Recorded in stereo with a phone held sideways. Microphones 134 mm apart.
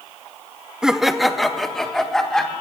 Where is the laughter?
5° right (ahead or behind), 0.7 m; by 2.5 s 5° left (ahead or behind), 2.5 m.